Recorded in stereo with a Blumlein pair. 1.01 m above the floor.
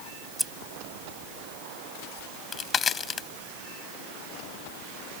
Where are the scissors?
5° right.